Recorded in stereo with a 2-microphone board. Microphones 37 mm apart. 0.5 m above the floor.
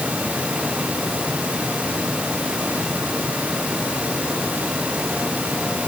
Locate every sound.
Only background noise.